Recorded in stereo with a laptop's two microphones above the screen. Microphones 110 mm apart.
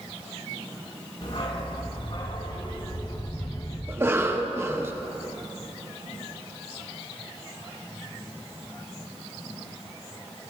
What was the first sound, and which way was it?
A dog barking, 60° left (ahead or behind).